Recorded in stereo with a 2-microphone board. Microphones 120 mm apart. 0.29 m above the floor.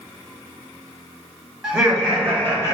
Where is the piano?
I don't hear a piano.